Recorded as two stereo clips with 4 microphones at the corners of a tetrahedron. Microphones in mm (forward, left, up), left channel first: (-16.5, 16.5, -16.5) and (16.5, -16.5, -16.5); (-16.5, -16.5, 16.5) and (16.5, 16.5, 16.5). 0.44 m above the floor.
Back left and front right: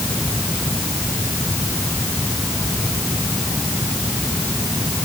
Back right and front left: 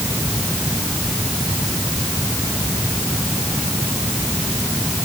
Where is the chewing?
I don't hear chewing.